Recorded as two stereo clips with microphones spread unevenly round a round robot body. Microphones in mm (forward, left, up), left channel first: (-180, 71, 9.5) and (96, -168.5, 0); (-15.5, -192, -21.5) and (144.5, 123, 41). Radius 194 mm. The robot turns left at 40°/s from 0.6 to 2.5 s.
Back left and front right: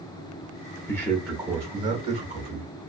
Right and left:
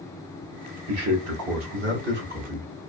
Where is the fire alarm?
No fire alarm in this recording.